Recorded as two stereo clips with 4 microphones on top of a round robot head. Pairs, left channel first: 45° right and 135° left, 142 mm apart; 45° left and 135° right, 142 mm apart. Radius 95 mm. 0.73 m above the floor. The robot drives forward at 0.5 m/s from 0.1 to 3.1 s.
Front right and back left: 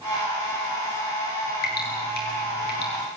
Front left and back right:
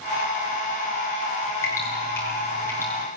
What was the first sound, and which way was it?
Dripping, 30° right.